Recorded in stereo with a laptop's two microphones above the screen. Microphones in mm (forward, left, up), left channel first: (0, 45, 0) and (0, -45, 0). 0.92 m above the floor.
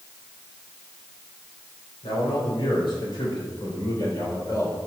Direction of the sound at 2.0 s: 70° left (ahead or behind).